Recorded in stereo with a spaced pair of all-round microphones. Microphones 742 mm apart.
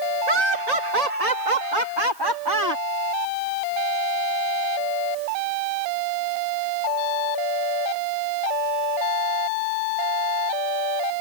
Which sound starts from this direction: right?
Laughter, at 0.3 s.